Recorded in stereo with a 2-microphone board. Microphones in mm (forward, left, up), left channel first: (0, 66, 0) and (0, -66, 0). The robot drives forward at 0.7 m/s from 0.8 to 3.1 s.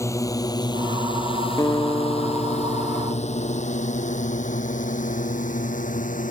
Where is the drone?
25° left (ahead or behind); by 6.3 s 80° left.